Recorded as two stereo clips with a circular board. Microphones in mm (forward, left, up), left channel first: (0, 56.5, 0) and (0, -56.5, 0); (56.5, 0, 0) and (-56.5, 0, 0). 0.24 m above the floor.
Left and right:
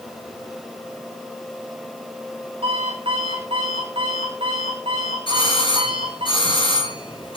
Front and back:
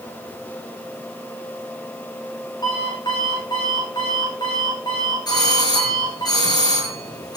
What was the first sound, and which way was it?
An alarm clock, 50° right.